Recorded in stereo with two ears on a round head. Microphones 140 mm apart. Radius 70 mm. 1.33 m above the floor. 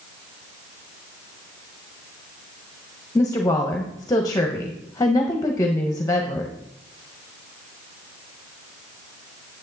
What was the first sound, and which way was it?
A woman speaking, 20° left (ahead or behind).